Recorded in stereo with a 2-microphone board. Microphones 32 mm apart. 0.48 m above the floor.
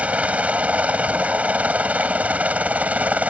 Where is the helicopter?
45° right (ahead or behind).